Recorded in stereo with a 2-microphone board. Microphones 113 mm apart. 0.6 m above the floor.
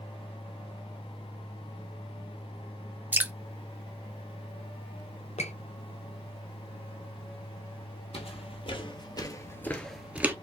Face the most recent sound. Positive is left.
turn(degrees=-20)  # may be behind; listen again after turning